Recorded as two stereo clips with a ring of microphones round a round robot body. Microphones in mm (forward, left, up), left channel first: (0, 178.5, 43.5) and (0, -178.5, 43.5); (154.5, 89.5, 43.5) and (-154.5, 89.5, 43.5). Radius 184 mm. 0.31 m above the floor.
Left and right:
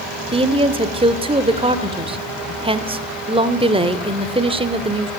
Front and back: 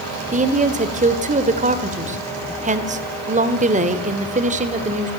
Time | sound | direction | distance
0.3 | a woman speaking | 150° right | 1.3 m